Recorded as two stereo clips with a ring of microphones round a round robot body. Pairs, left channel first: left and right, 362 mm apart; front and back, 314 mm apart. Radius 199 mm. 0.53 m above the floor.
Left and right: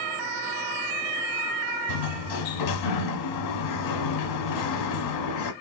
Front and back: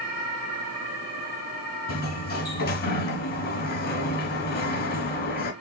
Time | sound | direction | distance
1.9 | a sliding door | 60° left | 0.9 m